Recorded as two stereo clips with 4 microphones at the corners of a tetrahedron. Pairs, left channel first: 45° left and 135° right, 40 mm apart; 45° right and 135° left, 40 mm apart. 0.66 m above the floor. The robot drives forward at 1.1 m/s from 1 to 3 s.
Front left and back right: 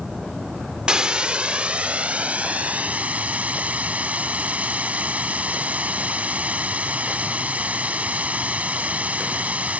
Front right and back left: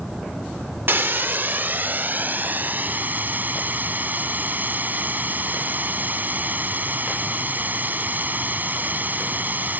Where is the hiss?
160° left; by 9.8 s 175° left.